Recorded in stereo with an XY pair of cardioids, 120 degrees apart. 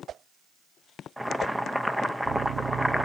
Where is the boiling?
5° right, 0.7 m.